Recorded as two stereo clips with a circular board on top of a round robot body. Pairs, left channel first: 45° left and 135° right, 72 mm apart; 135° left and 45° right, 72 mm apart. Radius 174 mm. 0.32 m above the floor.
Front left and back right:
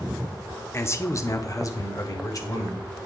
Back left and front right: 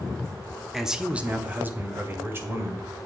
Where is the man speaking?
40° left, 0.9 m; by 3.1 s 5° left, 2 m.